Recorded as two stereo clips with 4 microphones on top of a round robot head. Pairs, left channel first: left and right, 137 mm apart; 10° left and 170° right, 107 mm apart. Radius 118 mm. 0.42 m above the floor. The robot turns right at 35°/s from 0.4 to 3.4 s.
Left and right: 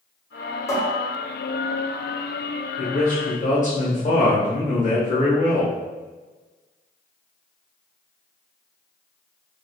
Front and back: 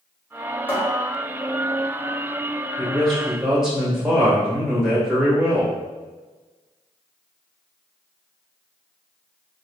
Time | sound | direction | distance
0.7 | a cupboard door | 50° left | 1.1 m
2.8 | a man speaking | 80° left | 1.8 m